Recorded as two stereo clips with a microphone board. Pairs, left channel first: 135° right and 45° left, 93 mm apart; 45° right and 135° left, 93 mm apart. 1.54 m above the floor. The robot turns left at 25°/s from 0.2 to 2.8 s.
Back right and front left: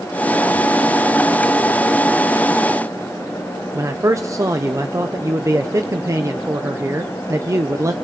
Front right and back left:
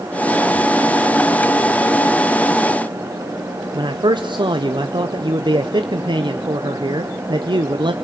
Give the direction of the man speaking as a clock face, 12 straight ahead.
9 o'clock.